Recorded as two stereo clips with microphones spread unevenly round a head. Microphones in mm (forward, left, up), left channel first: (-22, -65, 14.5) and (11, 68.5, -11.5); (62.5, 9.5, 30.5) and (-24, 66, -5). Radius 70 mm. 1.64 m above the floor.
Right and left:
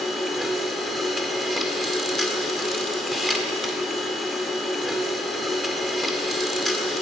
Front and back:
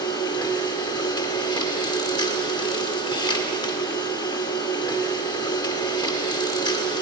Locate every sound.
0.0 s a machine running: 25° right, 1.8 m